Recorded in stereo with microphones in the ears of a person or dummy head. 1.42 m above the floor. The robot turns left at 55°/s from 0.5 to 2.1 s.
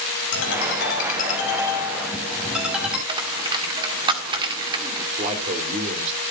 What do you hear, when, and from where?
0.3 s a ringtone: 80° left, 6.5 m; by 3.0 s 5° right, 6.5 m
3.1 s a dropped coin: 30° right (ahead or behind), 1.7 m
5.2 s a man speaking: 40° right (ahead or behind), 4 m